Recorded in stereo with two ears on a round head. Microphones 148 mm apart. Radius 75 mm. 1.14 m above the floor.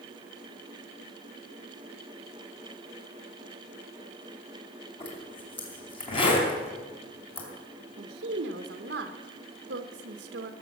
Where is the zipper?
35° left (ahead or behind), 3 m.